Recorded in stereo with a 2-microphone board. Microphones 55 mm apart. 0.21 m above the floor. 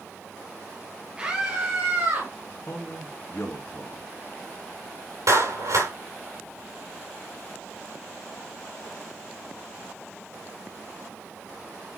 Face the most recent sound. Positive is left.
turn(degrees=-75)  # may be behind; listen again after turning